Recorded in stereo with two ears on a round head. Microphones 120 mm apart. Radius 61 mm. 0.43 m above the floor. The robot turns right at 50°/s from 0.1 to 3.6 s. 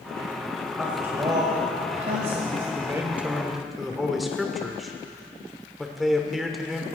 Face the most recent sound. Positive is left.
turn(degrees=0)